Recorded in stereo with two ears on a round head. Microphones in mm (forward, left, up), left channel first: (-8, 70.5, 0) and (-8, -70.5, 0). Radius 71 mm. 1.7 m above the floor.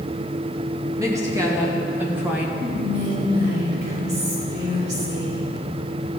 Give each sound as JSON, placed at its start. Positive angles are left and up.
{"t": 1.0, "sound": "a woman speaking", "side_deg": -20, "distance_m": 2.5}
{"t": 2.6, "sound": "whispering", "side_deg": -65, "distance_m": 5.0}